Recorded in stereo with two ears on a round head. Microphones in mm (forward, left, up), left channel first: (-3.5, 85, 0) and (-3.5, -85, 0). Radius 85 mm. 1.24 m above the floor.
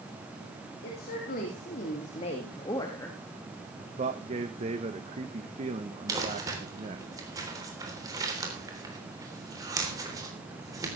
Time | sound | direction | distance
0.8 | a woman speaking | 55° left (ahead or behind) | 3 m
3.8 | a man speaking | 35° right (ahead or behind) | 1.1 m
6.1 | crumpling | 20° right (ahead or behind) | 3.5 m